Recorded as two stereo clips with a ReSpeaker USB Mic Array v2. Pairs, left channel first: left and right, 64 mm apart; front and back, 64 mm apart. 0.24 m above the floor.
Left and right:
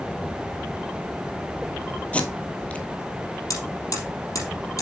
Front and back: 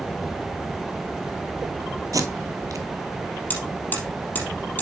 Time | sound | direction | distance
2.1 | tape being pulled | 160° left | 1.0 m
3.5 | hammering | 60° left | 3.5 m